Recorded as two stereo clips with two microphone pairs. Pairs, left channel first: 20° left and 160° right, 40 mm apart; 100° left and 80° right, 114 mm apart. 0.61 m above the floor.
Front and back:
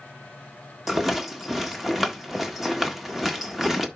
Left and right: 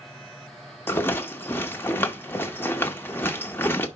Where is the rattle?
130° left, 1.1 m.